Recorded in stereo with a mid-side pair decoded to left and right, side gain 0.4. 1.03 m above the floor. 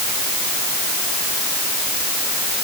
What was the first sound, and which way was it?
Only background noise.